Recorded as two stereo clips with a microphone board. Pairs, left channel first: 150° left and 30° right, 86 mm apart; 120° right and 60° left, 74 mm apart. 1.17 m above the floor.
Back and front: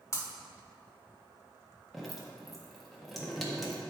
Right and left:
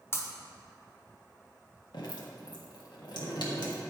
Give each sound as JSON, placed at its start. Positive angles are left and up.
{"t": 0.1, "sound": "breaking glass", "azimuth_deg": -165, "distance_m": 1.2}
{"t": 1.9, "sound": "dripping", "azimuth_deg": -120, "distance_m": 1.5}